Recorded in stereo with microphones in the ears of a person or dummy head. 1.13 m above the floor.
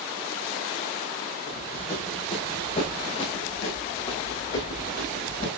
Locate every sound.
1.5 s running footsteps: 25° left (ahead or behind), 5.5 m